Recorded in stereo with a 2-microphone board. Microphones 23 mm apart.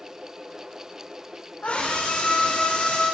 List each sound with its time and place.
1.6 s a scream: 90° left, 6 m; by 3.0 s 85° left, 7 m